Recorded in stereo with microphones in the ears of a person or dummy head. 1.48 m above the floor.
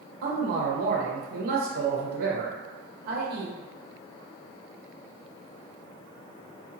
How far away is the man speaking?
About 1.5 m.